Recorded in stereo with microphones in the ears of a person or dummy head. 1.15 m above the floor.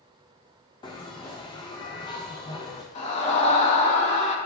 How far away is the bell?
About 0.8 m.